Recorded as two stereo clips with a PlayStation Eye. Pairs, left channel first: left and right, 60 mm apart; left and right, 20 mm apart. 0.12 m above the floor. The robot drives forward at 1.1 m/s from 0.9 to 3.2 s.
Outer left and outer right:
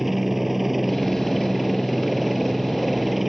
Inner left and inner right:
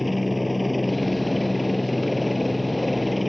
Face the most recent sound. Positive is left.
turn(degrees=-5)  # may be behind; listen again after turning